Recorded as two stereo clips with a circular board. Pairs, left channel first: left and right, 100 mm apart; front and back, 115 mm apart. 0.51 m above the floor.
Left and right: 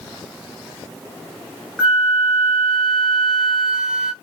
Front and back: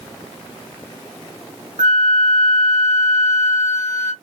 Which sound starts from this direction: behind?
A flute, at 1.8 s.